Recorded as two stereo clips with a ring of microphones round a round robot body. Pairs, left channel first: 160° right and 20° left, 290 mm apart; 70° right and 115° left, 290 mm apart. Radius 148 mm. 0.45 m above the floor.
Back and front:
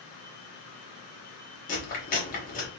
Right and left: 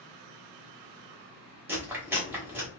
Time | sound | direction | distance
1.7 | chewing | 170° right | 1.2 m